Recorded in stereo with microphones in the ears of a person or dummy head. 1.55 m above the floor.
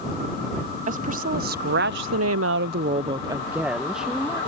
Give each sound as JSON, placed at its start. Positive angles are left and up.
{"t": 0.9, "sound": "a woman speaking", "side_deg": -50}